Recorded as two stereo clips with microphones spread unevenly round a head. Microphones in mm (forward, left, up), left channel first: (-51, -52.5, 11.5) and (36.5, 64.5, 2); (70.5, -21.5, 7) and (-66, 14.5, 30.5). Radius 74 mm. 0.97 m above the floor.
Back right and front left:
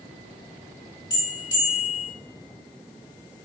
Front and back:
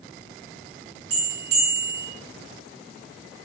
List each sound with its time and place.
1.1 s a bell: 170° left, 3 m